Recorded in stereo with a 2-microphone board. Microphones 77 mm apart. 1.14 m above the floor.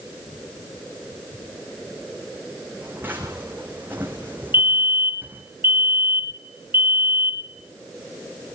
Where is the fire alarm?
30° right (ahead or behind), 1.8 m.